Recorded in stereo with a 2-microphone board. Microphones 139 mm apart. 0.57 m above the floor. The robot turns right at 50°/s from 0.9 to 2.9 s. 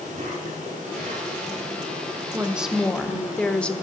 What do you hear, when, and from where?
0.0 s an insect: 110° right, 7.5 m; by 3.8 s 10° right, 7.5 m
2.3 s a woman speaking: 15° right (ahead or behind), 1.2 m; by 3.7 s 10° left (ahead or behind), 1.2 m